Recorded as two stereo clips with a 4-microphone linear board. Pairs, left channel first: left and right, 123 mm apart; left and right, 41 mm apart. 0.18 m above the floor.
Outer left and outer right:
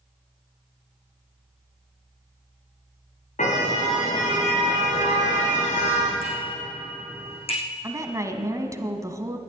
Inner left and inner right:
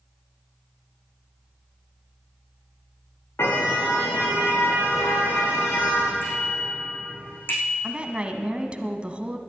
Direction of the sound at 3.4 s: 85° left.